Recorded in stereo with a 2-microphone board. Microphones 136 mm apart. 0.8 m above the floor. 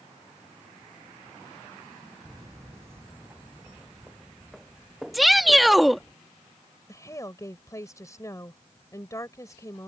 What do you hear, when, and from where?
2.2 s footsteps: 30° right (ahead or behind); by 6.1 s centre (ahead or behind)
5.1 s a shout: centre (ahead or behind)
6.9 s a woman speaking: 25° left (ahead or behind)